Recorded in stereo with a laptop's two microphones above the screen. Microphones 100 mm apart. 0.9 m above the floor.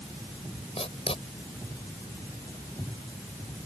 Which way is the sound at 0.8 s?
65° left (ahead or behind).